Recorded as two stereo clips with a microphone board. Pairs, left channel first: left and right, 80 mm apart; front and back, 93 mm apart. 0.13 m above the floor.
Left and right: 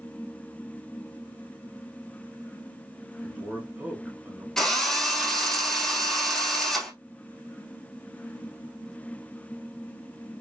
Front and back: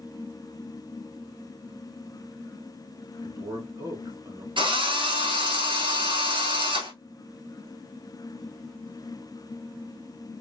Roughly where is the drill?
Behind.